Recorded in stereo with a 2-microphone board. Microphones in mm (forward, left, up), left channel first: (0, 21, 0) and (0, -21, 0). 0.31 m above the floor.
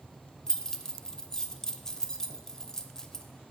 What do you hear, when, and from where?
0.5 s keys jangling: 15° left (ahead or behind), 0.7 m